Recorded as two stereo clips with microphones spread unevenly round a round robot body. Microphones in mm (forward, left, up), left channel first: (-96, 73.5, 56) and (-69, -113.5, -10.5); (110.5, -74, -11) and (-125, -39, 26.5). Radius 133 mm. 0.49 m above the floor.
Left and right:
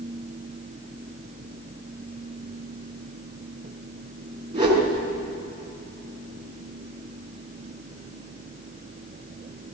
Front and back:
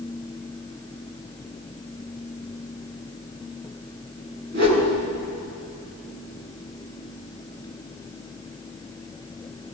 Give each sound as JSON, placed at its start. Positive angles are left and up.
{"t": 4.5, "sound": "a whoosh", "azimuth_deg": -145, "distance_m": 6.5}